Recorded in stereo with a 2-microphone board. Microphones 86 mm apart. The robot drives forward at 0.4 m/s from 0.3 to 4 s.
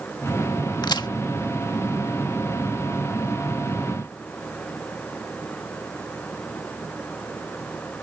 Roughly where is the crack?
Left.